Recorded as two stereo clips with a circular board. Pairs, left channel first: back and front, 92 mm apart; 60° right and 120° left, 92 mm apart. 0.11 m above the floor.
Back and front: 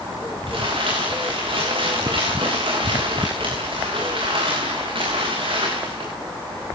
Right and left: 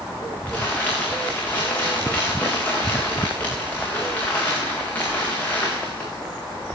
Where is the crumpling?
15° left, 7.5 m.